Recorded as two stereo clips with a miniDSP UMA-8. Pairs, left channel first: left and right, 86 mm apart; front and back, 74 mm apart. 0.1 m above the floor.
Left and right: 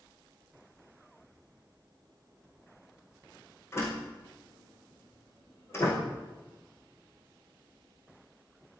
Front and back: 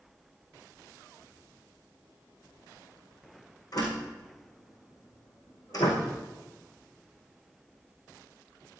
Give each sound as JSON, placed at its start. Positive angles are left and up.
{"t": 3.7, "sound": "a door slam", "azimuth_deg": 30, "distance_m": 4.5}